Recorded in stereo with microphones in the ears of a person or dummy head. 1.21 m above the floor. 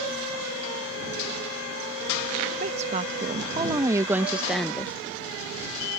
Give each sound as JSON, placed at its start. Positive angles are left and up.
{"t": 2.6, "sound": "a woman speaking", "side_deg": -40}